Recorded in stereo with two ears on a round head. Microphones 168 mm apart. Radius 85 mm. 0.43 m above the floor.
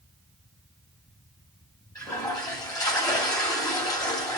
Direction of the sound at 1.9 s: 20° left (ahead or behind).